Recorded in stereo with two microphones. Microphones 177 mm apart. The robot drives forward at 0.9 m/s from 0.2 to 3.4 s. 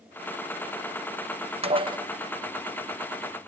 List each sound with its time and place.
1.6 s dishes clattering: 35° right (ahead or behind), 0.6 m; by 2.0 s 25° right (ahead or behind), 0.8 m